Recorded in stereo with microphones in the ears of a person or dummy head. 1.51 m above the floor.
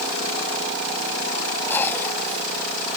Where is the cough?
15° left (ahead or behind).